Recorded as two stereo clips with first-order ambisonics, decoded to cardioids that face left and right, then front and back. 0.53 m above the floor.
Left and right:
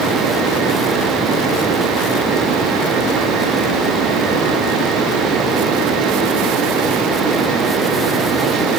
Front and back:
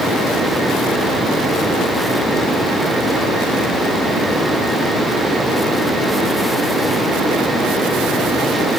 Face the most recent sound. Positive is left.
No sound to turn to.